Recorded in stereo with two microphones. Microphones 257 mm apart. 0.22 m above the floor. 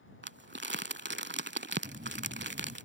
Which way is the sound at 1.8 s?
35° right (ahead or behind).